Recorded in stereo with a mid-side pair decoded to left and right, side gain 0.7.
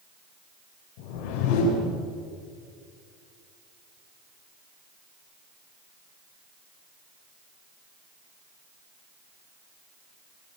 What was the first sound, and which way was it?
A whoosh, 70° left.